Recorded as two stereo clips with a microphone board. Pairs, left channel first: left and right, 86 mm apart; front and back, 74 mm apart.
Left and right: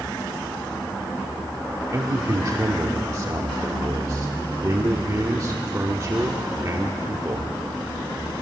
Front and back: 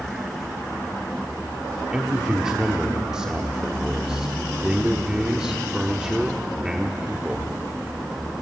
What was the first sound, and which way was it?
A man speaking, 105° right.